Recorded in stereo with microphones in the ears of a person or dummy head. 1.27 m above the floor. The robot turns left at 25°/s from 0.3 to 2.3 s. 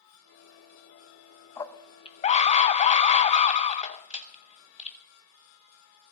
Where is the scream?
20° left (ahead or behind), 1.0 m; by 5.0 s 35° left (ahead or behind), 1.0 m.